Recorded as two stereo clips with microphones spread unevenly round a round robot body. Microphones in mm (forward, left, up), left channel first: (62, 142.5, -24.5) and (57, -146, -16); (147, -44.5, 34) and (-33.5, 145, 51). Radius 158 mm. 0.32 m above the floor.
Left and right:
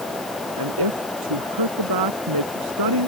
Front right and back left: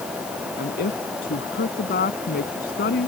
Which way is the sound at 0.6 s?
105° right.